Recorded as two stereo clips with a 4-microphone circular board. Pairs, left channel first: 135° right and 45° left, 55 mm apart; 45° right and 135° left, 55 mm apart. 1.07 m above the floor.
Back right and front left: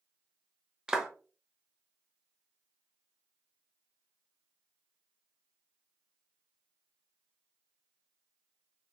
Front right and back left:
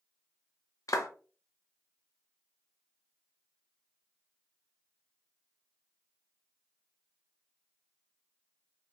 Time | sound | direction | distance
0.9 | a clap | 35° right | 0.6 m